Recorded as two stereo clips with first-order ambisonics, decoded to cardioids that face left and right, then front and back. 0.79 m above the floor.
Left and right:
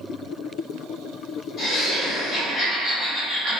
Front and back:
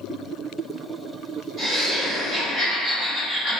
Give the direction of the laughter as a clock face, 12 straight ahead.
8 o'clock.